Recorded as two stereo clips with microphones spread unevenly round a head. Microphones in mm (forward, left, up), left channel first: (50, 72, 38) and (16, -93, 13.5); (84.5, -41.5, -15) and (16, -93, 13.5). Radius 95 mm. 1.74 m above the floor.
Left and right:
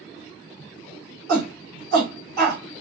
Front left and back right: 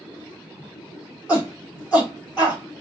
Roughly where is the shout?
Right.